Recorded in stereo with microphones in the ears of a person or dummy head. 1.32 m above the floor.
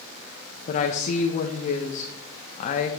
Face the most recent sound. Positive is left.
turn(degrees=40)  # may be behind; listen again after turning